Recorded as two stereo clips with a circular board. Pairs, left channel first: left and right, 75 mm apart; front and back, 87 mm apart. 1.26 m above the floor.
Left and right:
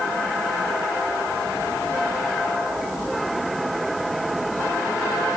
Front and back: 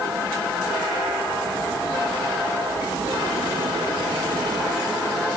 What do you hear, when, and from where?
Only background noise.